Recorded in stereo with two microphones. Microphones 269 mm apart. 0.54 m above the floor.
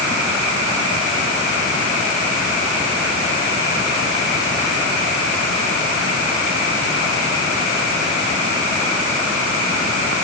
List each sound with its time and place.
Only background noise.